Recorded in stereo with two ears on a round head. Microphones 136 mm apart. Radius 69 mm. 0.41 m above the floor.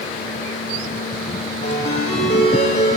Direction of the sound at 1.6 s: 45° left (ahead or behind).